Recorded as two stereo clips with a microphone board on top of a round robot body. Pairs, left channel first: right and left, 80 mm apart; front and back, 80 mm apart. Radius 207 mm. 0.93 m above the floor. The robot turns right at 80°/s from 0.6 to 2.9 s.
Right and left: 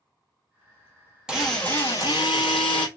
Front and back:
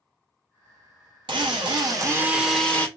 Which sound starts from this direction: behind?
A drill, at 1.3 s.